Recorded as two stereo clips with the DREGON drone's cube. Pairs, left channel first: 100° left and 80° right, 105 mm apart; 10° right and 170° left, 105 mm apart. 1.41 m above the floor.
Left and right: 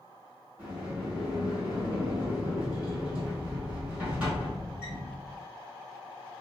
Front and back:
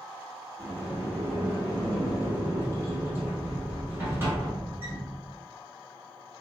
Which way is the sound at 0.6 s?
145° right.